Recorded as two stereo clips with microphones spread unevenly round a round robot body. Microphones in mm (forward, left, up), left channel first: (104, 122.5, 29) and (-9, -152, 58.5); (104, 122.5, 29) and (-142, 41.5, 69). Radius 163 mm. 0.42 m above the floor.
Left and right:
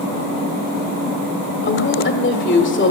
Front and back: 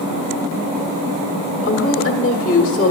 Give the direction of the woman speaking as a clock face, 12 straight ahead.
11 o'clock.